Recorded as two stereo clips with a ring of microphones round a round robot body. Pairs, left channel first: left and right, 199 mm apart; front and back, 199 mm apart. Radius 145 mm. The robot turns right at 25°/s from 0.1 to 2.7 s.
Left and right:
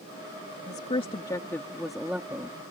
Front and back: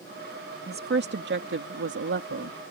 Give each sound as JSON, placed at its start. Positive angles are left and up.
{"t": 0.7, "sound": "a woman speaking", "azimuth_deg": 150}